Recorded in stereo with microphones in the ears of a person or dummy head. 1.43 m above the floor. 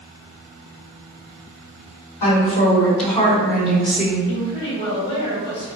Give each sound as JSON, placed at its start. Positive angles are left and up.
{"t": 2.2, "sound": "a woman speaking", "side_deg": 45, "distance_m": 1.8}
{"t": 4.3, "sound": "a woman speaking", "side_deg": 25, "distance_m": 1.7}